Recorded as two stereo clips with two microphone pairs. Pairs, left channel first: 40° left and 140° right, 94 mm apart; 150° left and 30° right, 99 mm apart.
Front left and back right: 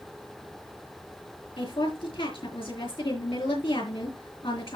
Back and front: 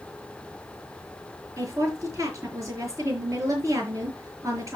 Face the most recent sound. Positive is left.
turn(degrees=30)